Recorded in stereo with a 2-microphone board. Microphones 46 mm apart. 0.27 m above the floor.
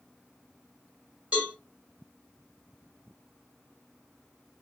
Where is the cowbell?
25° right (ahead or behind), 2.5 m.